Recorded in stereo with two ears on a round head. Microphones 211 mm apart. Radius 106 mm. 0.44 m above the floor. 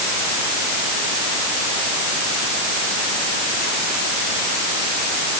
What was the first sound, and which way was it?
Only background noise.